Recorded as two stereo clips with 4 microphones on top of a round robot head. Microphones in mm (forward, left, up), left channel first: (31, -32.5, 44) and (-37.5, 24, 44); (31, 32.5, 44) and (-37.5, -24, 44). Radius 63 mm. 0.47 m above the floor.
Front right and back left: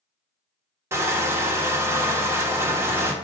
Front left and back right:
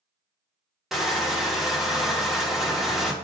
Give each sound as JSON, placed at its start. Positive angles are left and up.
{"t": 0.9, "sound": "crushing", "azimuth_deg": 135, "distance_m": 1.2}